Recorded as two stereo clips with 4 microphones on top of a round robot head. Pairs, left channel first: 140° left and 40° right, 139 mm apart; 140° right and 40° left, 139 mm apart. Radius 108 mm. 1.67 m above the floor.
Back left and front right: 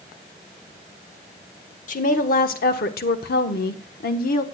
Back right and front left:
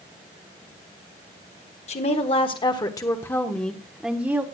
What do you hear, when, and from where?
1.9 s a woman speaking: 175° left, 1.5 m; by 4.4 s 115° left, 1.3 m